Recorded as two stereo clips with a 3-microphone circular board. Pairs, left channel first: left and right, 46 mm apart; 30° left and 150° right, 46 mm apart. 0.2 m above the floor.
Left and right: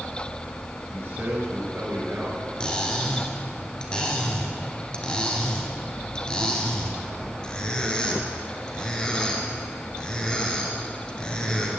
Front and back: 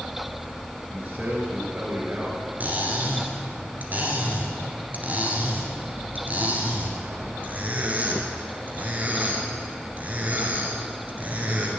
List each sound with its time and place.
0.9 s a man speaking: 110° right, 3.5 m
2.6 s cutlery clinking: 160° left, 1.7 m